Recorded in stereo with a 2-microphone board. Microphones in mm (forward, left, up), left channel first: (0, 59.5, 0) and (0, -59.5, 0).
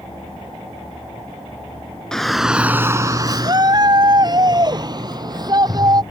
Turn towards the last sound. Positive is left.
turn(degrees=-35)  # may be behind; listen again after turning